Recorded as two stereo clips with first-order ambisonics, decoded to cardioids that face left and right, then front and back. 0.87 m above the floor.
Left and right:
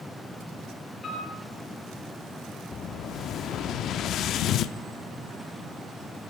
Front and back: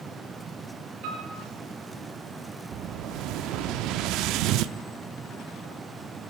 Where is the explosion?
145° left, 0.7 m.